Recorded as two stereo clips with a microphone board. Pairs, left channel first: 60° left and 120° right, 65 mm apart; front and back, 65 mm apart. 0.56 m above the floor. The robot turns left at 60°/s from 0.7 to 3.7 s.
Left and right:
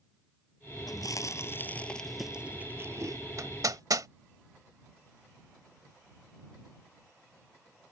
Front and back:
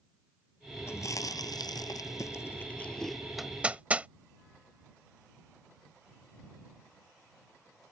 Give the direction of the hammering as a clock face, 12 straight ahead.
3 o'clock.